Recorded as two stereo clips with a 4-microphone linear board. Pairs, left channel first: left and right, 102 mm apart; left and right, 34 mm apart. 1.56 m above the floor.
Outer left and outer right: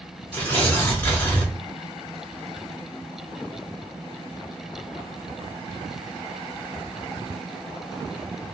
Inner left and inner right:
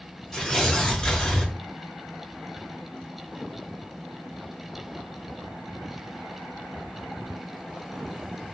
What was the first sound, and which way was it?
Tearing paper, 20° left (ahead or behind).